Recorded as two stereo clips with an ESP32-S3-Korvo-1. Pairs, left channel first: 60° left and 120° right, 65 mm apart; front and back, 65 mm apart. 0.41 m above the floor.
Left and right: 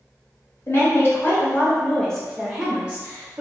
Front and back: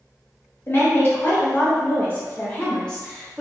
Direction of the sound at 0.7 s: 35° left.